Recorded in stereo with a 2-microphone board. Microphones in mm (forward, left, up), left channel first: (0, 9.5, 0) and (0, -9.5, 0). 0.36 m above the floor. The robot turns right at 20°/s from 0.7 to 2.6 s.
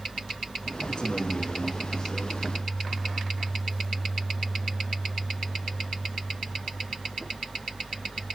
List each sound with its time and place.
0.9 s a man speaking: 120° left, 5 m; by 2.4 s 150° left, 5 m